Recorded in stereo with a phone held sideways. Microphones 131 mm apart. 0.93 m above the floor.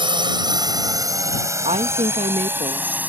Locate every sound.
0.0 s a drone: 40° right (ahead or behind); by 3.1 s 15° right (ahead or behind)
1.6 s a woman speaking: 55° right (ahead or behind)